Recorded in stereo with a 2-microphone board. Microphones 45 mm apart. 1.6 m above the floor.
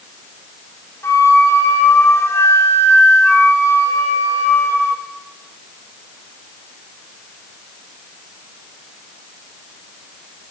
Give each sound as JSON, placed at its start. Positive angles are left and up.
{"t": 1.0, "sound": "a flute", "side_deg": 85, "distance_m": 4.5}